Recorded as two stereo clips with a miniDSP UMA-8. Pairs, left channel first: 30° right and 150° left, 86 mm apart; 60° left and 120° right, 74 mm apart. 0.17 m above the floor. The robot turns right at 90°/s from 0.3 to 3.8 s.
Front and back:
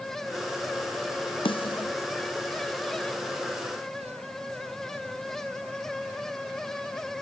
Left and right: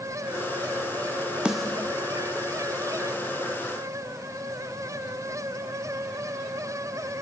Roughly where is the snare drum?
Ahead right.